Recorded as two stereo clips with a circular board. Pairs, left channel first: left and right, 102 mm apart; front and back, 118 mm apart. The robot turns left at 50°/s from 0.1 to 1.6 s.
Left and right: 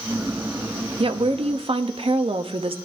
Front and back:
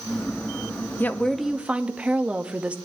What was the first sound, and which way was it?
A woman speaking, 70° right.